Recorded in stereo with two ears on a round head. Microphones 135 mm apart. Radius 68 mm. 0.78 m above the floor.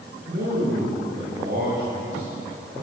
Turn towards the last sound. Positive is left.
turn(degrees=-50)  # may be behind; listen again after turning